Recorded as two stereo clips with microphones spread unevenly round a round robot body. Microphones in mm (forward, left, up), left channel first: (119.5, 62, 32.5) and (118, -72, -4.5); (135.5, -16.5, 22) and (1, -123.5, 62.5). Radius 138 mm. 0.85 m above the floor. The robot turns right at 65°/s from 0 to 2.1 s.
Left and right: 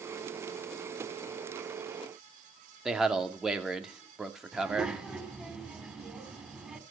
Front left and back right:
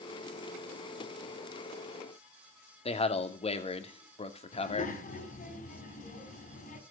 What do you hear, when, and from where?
2.9 s a man speaking: 10° right, 2.5 m
4.5 s a child speaking: 5° right, 4.5 m